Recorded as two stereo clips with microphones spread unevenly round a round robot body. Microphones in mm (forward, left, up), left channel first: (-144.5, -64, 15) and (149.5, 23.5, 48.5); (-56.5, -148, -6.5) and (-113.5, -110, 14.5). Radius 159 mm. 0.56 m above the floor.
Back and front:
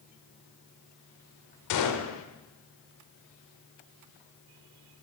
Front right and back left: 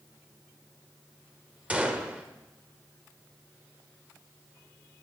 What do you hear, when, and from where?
1.7 s a gunshot: 135° right, 1.1 m